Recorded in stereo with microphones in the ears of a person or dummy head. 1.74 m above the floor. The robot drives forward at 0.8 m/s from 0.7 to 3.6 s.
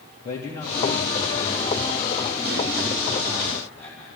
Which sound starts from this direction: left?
A man speaking, at 0.2 s.